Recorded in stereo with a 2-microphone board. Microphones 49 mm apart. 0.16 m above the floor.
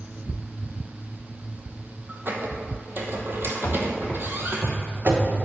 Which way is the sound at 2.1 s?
45° right (ahead or behind).